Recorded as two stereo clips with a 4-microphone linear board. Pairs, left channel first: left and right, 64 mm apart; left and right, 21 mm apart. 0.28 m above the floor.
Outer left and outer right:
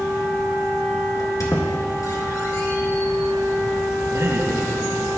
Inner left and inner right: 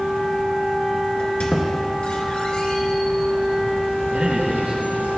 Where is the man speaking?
65° right (ahead or behind), 3.5 m.